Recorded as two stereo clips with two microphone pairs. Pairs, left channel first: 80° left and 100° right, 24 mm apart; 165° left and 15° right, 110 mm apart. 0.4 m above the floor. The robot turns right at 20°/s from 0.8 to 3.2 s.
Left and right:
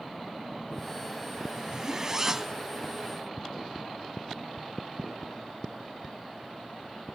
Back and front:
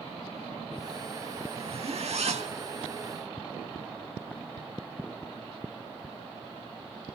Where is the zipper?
40° right, 0.6 m; by 2.6 s 20° right, 0.6 m.